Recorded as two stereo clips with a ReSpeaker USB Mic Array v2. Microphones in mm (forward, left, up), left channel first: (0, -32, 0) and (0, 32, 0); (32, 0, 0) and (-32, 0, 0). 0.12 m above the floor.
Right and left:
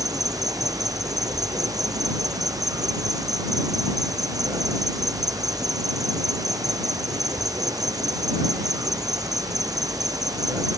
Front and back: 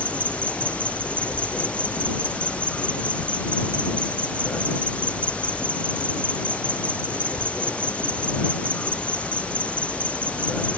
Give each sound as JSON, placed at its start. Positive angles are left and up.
{"t": 0.0, "sound": "an insect", "azimuth_deg": 70}